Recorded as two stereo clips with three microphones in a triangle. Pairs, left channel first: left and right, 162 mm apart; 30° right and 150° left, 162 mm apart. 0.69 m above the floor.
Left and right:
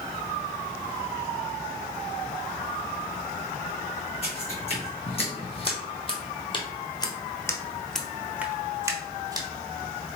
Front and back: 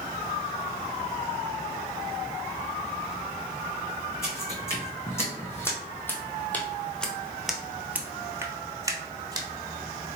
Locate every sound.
4.2 s footsteps: 40° left, 1.9 m; by 9.5 s 150° right, 1.0 m